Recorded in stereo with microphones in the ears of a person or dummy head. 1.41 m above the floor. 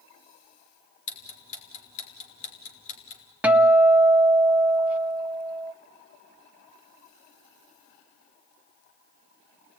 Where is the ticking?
40° left (ahead or behind), 4 m.